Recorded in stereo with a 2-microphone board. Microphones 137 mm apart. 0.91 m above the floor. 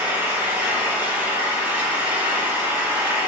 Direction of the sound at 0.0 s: 15° right (ahead or behind).